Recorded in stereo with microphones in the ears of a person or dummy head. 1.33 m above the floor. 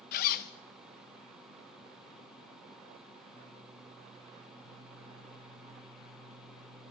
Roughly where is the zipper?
Left.